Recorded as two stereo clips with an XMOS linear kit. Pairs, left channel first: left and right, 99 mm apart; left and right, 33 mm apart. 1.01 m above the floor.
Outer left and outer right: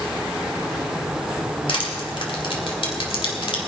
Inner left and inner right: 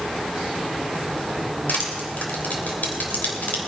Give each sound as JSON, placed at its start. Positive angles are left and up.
{"t": 1.7, "sound": "crushing", "side_deg": 65, "distance_m": 2.5}